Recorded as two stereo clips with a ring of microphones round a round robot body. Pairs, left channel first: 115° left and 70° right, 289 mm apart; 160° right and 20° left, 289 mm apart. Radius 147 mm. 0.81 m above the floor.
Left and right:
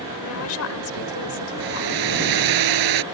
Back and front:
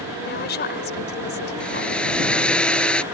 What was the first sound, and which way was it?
A woman speaking, 150° left.